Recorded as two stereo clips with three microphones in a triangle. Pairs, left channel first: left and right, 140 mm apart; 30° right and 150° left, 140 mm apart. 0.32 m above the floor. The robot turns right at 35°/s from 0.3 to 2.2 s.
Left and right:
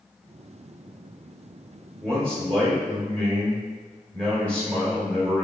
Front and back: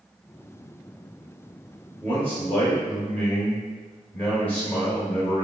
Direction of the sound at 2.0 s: 15° left.